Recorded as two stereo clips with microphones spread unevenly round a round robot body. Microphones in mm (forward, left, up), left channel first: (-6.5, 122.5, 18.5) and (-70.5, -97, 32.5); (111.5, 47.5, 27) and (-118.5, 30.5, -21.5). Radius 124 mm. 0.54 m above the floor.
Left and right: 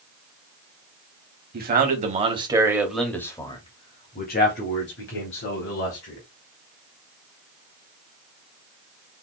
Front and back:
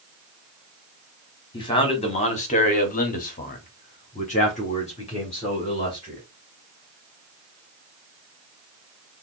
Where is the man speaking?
70° right, 1.3 m; by 6.2 s 75° left, 2 m.